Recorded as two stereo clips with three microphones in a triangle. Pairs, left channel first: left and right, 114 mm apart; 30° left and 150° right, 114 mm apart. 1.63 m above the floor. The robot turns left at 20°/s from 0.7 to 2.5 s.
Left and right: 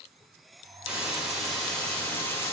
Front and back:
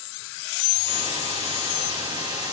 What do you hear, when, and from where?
0.9 s a hiss: 170° right, 4 m; by 2.5 s 155° left, 4 m